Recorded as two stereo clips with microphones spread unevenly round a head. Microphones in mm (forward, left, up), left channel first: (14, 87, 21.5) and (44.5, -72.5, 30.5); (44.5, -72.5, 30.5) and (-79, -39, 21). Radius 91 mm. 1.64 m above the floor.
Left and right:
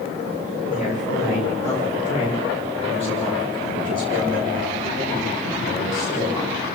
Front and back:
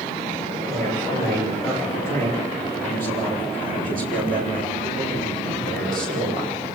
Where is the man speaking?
150° left, 8.5 m; by 6.6 s 175° left, 9 m.